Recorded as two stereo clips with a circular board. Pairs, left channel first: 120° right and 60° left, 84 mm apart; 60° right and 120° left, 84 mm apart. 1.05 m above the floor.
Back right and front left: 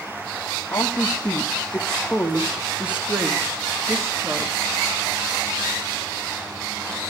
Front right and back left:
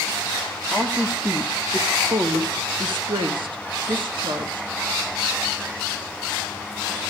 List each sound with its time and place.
0.7 s a woman speaking: 170° right, 1.6 m; by 4.7 s 105° left, 2 m